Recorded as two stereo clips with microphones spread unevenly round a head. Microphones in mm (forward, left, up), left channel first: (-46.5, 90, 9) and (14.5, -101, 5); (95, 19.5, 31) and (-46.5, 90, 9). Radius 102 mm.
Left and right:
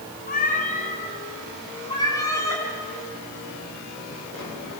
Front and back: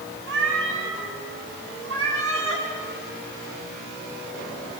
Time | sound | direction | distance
0.3 | a cat meowing | 160° left | 4.5 m